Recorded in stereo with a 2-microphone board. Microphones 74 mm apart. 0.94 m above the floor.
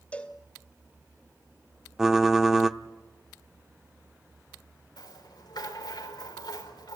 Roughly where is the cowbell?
Centre.